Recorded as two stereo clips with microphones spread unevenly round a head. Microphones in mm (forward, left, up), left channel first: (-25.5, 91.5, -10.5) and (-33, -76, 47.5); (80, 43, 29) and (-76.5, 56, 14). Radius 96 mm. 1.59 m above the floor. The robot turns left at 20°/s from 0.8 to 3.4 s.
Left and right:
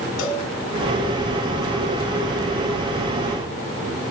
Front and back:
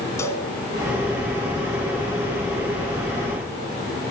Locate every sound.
0.2 s a cowbell: 60° left, 2.5 m